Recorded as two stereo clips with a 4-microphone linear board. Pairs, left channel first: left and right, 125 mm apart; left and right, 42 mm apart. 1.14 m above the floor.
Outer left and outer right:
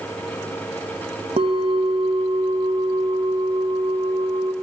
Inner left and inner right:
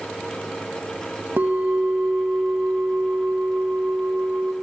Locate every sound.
1.4 s a bell: 55° right (ahead or behind), 1.7 m